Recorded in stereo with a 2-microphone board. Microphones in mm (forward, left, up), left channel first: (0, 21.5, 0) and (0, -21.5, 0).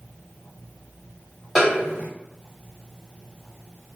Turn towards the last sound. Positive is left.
turn(degrees=5)  # may be behind; listen again after turning